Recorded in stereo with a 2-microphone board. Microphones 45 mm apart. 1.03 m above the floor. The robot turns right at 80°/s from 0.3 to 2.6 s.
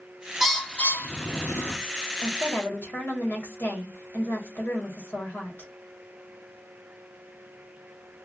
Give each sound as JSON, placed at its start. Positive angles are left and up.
{"t": 0.4, "sound": "a bird", "side_deg": 0, "distance_m": 0.6}
{"t": 2.2, "sound": "a woman speaking", "azimuth_deg": 30, "distance_m": 1.3}